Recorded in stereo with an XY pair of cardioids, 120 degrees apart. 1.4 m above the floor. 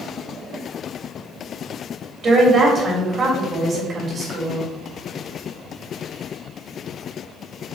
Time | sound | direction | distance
2.2 | a woman speaking | 40° right | 3 m